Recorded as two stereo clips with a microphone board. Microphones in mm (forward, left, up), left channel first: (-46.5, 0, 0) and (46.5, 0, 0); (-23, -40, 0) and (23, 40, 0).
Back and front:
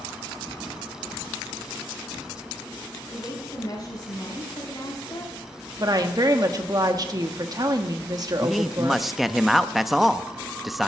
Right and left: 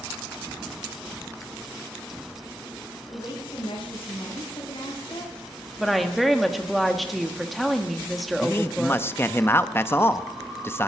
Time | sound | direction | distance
3.1 | a woman speaking | 140° right | 5 m
5.8 | a woman speaking | 30° right | 1.3 m
8.4 | a man speaking | 85° right | 0.6 m